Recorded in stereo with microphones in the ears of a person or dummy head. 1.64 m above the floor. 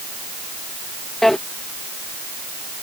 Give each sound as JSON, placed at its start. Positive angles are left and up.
{"t": 1.2, "sound": "a drawer", "side_deg": 5}